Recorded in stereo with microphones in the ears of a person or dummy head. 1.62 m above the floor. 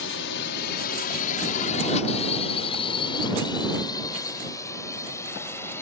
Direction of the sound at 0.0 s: 75° left (ahead or behind).